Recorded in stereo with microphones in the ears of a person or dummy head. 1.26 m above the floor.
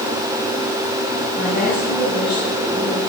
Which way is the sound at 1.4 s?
Centre (ahead or behind).